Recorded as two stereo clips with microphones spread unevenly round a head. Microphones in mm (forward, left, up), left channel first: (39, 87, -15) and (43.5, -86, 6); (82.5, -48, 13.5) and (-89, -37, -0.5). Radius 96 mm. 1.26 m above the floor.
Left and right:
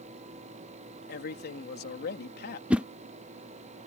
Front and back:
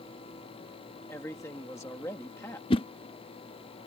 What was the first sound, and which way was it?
A man speaking, 75° left.